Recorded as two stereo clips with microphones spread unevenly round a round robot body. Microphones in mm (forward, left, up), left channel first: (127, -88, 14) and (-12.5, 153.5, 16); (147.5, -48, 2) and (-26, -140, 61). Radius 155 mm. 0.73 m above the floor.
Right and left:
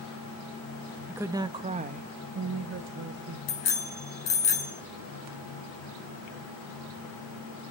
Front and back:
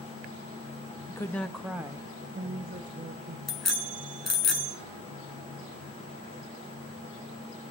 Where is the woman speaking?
40° left, 0.9 m; by 3.4 s 155° left, 1.3 m.